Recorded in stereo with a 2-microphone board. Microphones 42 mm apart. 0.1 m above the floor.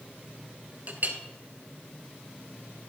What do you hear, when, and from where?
0.9 s a clink: 45° right (ahead or behind), 1.1 m